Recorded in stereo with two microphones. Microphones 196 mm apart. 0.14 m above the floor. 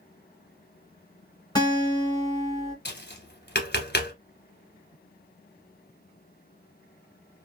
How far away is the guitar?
About 1.6 m.